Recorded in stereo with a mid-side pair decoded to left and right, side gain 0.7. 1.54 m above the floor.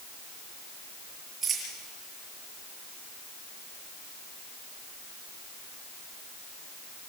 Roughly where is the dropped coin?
Ahead right.